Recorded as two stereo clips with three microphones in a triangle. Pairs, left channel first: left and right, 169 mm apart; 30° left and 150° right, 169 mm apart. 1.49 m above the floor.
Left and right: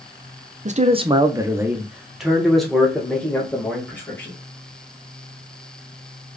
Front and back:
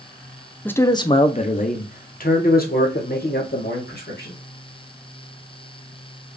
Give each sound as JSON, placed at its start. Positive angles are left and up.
{"t": 0.7, "sound": "a man speaking", "azimuth_deg": -50, "distance_m": 0.6}